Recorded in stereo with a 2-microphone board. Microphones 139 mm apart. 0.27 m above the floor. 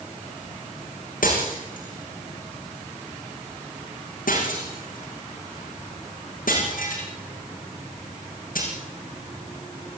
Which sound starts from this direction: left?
Breaking glass, at 1.2 s.